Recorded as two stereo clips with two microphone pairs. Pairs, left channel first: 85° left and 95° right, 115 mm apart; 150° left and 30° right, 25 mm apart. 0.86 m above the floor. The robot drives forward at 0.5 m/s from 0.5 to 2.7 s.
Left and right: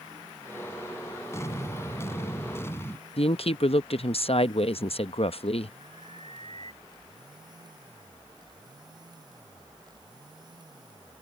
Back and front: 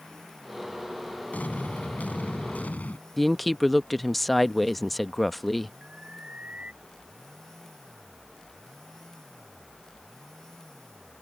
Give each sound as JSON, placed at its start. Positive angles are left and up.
{"t": 1.3, "sound": "an explosion", "azimuth_deg": 150}
{"t": 3.2, "sound": "a woman speaking", "azimuth_deg": 60}
{"t": 5.8, "sound": "an alarm", "azimuth_deg": -65}